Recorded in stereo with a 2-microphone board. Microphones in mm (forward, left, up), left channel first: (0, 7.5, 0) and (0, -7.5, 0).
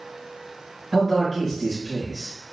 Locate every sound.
0.9 s a man speaking: 10° left (ahead or behind), 0.9 m